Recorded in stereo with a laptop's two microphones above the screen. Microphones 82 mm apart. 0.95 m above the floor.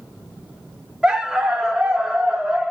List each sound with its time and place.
1.0 s a dog barking: 10° right (ahead or behind), 0.5 m